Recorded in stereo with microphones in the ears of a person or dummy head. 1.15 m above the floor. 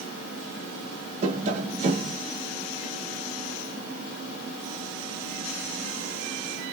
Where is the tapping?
40° right (ahead or behind), 0.9 m.